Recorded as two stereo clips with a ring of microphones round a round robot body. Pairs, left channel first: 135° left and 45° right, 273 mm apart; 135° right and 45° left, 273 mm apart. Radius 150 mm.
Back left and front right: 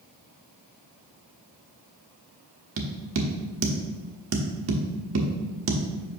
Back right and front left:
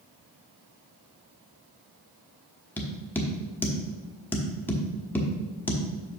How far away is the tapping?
About 1.1 m.